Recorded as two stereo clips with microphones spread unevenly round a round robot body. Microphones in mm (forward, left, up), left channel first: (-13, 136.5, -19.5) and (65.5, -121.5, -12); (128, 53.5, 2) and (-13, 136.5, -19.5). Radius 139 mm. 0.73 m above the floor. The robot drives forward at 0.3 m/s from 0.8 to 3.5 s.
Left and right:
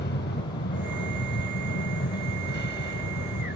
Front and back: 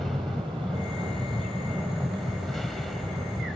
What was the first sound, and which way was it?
An aircraft, 55° left.